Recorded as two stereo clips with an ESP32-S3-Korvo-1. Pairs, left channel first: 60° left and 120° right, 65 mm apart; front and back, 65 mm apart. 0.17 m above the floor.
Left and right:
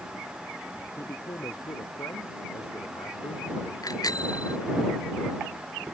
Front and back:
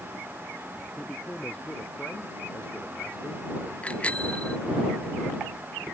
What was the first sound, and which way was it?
A man speaking, 70° left.